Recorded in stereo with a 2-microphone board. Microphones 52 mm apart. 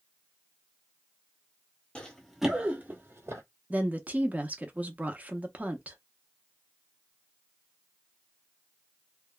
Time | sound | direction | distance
1.9 | running footsteps | 20° left (ahead or behind) | 1.1 m
3.7 | a woman speaking | 30° right (ahead or behind) | 0.7 m